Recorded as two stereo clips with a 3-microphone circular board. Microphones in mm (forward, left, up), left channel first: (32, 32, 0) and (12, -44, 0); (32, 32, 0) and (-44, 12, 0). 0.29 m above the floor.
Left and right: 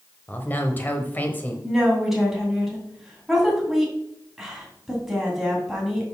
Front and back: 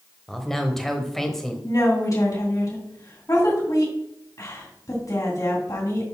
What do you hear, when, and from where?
0.3 s a man speaking: 95° left, 1.2 m
1.6 s a woman speaking: 20° right, 2.5 m